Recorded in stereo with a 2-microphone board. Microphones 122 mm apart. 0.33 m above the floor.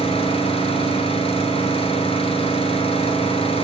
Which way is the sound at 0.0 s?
50° left (ahead or behind).